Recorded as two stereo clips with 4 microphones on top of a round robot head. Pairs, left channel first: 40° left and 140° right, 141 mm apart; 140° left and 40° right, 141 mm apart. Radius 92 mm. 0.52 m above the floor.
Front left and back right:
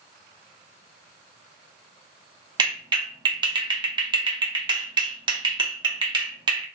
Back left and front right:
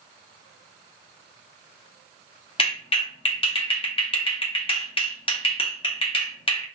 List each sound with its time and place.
2.6 s a clap: 175° left, 1.0 m